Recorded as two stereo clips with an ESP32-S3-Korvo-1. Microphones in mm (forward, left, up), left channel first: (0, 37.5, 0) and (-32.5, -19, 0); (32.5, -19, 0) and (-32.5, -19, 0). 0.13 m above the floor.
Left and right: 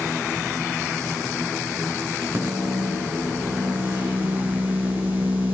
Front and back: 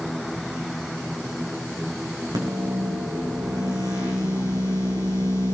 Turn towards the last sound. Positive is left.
turn(degrees=180)